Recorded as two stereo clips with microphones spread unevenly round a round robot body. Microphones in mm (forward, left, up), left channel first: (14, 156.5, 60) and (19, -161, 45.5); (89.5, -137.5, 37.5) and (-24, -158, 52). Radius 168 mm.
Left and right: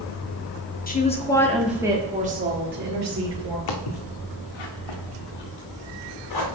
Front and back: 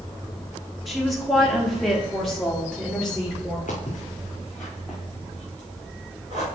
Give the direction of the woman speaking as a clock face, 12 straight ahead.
9 o'clock.